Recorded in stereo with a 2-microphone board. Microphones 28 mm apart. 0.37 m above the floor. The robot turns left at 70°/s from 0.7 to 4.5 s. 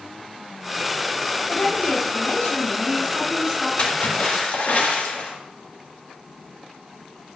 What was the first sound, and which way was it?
A woman speaking, 140° left.